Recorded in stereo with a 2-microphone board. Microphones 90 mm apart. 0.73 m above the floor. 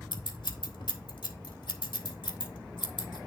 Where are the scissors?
70° left (ahead or behind), 1.6 m.